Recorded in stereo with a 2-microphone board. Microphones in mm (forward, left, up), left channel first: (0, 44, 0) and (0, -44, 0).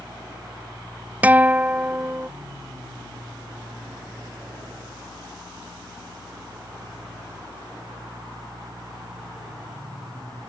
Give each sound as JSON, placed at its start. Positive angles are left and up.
{"t": 1.2, "sound": "a guitar", "side_deg": -20}